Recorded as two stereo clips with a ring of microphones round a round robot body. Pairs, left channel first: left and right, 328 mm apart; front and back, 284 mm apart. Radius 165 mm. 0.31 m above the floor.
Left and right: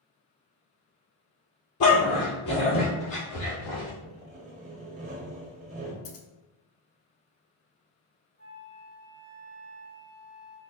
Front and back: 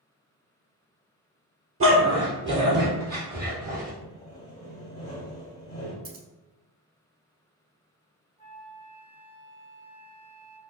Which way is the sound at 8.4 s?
125° left.